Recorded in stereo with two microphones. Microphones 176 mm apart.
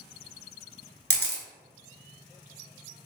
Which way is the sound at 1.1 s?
70° right (ahead or behind).